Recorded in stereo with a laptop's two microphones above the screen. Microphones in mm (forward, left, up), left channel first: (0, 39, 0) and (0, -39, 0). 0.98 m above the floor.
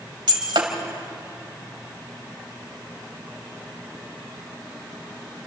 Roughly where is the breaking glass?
Right.